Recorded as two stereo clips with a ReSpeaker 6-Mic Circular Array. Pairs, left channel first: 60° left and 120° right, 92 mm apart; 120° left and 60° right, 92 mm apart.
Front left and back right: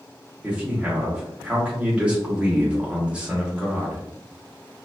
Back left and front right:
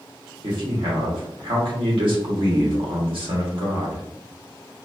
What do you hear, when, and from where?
0.4 s a man speaking: 40° right, 1.2 m